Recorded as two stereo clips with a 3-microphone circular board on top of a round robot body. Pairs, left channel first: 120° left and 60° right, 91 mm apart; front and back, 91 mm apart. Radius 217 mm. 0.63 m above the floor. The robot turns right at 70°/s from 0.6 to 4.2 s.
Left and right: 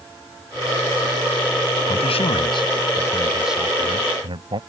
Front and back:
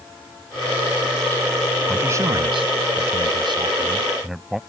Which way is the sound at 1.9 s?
105° left.